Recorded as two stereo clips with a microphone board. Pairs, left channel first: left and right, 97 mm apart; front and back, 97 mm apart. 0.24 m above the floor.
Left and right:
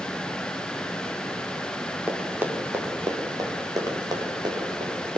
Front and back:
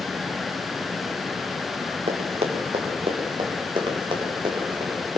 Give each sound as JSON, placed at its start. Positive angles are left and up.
{"t": 2.1, "sound": "running footsteps", "azimuth_deg": -170, "distance_m": 4.0}